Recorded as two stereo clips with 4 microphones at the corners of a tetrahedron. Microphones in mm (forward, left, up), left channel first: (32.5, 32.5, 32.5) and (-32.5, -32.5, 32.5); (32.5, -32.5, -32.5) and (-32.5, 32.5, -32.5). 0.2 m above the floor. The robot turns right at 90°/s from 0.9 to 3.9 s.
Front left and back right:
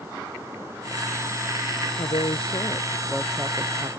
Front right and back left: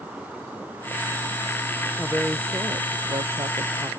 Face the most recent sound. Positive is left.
turn(degrees=-160)